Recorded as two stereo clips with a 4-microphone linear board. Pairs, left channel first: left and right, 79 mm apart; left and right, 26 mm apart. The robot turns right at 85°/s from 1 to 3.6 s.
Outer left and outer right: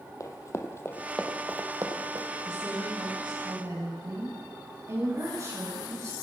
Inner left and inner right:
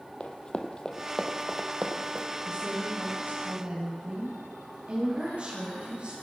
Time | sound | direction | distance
0.2 | running footsteps | 45° left (ahead or behind) | 2.5 m
2.5 | a woman speaking | 145° right | 8.5 m